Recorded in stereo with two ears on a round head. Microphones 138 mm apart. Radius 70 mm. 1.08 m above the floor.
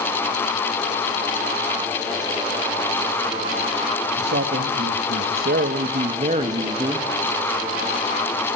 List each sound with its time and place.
4.2 s a man speaking: 75° right (ahead or behind), 1.5 m; by 7.1 s 25° right (ahead or behind), 1.5 m